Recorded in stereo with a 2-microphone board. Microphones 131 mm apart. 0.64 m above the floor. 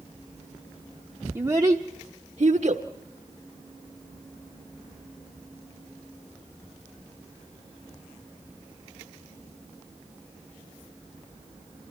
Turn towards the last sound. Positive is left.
turn(degrees=-60)  # may be behind; listen again after turning